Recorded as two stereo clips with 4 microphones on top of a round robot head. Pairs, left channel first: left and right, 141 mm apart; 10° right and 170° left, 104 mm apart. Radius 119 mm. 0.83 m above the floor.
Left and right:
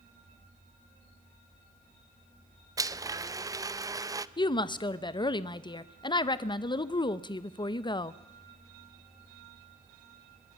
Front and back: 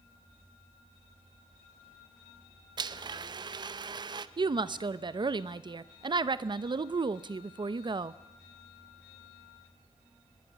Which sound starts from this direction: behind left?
A woman speaking, at 4.4 s.